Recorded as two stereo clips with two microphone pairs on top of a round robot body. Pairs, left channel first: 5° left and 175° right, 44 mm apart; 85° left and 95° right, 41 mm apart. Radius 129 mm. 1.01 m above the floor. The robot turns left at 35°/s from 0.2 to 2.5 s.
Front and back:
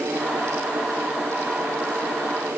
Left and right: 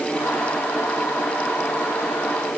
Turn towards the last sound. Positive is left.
No sound to turn to.